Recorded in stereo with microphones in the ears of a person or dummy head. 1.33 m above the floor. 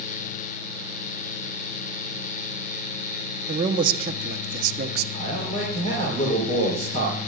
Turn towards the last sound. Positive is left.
turn(degrees=35)  # may be behind; listen again after turning